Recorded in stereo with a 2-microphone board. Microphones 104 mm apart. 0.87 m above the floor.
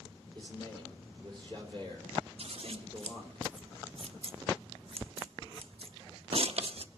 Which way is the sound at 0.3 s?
50° right (ahead or behind).